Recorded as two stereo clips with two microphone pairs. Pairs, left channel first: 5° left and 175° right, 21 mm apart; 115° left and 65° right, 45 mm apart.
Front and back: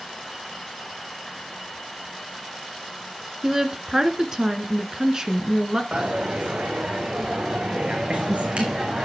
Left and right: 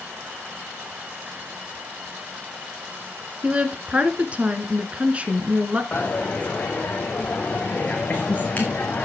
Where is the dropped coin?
170° left, 2.5 m.